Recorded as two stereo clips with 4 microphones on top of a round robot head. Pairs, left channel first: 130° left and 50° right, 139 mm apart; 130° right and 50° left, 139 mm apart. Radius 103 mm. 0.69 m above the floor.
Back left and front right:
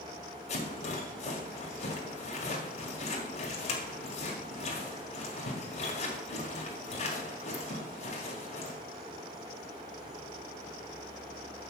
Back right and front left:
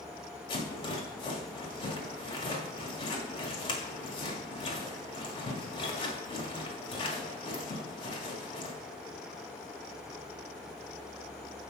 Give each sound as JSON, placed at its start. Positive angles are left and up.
{"t": 0.5, "sound": "a rattle", "azimuth_deg": 175, "distance_m": 1.9}